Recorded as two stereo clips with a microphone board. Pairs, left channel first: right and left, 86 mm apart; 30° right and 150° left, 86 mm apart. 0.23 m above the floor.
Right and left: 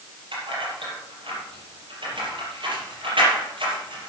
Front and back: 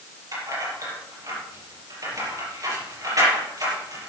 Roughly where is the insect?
I don't hear an insect.